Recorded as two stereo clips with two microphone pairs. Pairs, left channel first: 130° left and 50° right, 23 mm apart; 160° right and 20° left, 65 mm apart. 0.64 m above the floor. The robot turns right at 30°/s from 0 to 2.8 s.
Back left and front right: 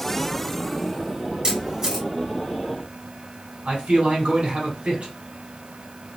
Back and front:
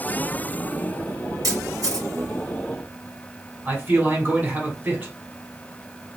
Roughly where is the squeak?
I don't hear a squeak.